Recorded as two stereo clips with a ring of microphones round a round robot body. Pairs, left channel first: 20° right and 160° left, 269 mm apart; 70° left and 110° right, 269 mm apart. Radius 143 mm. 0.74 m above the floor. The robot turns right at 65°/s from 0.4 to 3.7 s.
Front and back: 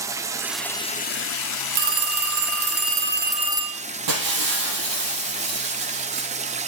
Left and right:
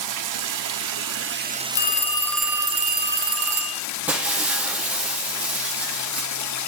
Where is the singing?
I don't hear singing.